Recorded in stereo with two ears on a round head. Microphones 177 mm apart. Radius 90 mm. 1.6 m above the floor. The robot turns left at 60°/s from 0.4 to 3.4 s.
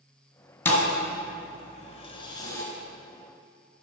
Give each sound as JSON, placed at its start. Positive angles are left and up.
{"t": 0.7, "sound": "a thud", "side_deg": 10, "distance_m": 1.7}